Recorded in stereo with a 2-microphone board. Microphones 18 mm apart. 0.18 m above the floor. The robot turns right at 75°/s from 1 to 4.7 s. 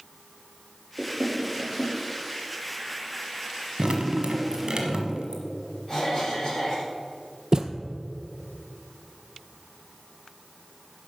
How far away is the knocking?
About 2.5 m.